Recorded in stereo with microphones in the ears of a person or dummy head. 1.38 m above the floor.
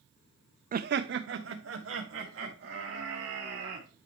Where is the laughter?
35° right (ahead or behind), 0.5 m; by 3.9 s 65° right (ahead or behind), 4.5 m.